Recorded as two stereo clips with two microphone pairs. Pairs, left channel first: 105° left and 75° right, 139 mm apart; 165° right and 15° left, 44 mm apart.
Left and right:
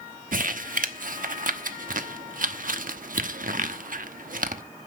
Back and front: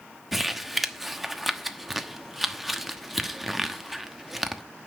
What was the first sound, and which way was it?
Crumpling, 70° right.